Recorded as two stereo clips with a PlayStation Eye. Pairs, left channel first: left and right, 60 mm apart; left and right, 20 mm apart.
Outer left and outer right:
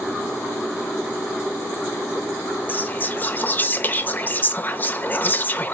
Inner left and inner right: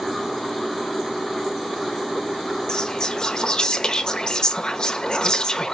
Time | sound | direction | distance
2.7 | whispering | 30° left (ahead or behind) | 0.9 m